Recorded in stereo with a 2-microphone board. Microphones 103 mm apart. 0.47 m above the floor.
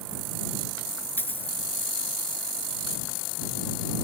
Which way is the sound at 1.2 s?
20° left (ahead or behind).